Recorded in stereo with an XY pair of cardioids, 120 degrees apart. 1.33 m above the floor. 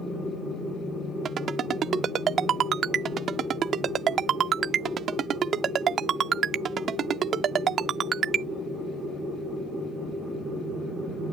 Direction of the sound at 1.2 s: 50° right.